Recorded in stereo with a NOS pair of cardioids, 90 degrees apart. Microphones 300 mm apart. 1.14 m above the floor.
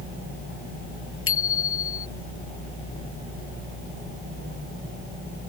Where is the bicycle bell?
45° left.